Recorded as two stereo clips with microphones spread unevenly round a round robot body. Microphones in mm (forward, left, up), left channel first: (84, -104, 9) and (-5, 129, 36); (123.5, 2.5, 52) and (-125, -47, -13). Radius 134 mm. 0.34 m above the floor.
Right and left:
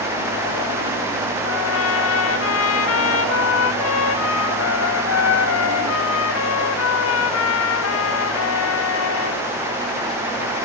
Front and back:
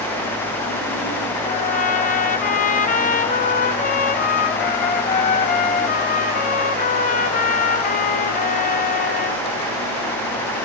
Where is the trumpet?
55° right, 1.3 m.